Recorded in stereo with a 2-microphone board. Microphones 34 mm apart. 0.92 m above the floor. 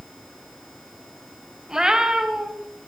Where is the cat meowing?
25° right (ahead or behind), 3 m.